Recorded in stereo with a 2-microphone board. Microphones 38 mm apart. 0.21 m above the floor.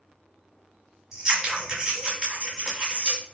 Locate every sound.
1.1 s scissors: 20° right (ahead or behind), 1.3 m